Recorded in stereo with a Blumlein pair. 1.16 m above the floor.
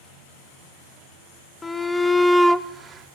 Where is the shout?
10° left, 1.3 m; by 3.1 s 30° right, 0.7 m.